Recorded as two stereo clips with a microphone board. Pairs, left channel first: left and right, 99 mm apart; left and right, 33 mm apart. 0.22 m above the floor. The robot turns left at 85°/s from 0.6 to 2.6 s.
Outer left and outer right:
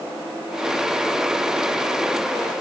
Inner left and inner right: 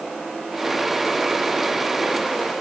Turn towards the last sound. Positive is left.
No sound to turn to.